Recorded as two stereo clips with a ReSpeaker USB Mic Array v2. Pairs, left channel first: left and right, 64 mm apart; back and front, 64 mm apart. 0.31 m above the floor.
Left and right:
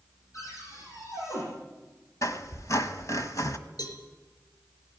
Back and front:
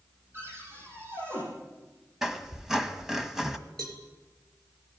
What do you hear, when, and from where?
0.3 s a cupboard door: 55° left, 10 m
2.2 s a squeak: 80° left, 1.5 m
3.8 s a cowbell: 100° left, 4 m